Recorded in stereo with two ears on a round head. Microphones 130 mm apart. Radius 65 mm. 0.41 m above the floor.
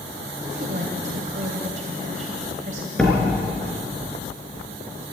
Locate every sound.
0.4 s a woman speaking: 55° right (ahead or behind), 2 m
3.0 s a door slam: 5° left (ahead or behind), 3.5 m